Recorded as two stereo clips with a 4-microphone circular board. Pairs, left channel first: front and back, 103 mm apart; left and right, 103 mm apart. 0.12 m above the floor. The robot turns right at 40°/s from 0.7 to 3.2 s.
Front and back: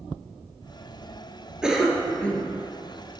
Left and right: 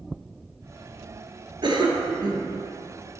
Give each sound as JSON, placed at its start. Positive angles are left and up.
{"t": 1.6, "sound": "a cough", "azimuth_deg": -100, "distance_m": 1.6}